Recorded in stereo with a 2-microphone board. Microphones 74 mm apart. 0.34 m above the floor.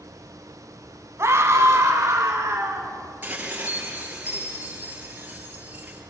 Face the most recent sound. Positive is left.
turn(degrees=-25)  # may be behind; listen again after turning